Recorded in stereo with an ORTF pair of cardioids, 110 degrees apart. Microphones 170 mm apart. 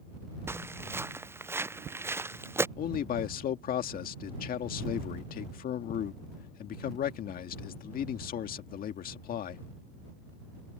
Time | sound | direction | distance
0.5 | footsteps | 15° right | ?
2.8 | a man speaking | 60° left | ?